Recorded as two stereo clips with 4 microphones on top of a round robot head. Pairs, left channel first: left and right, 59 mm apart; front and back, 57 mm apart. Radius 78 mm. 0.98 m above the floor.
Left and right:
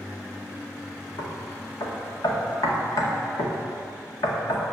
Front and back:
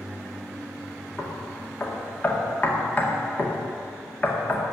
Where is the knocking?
60° left, 2 m.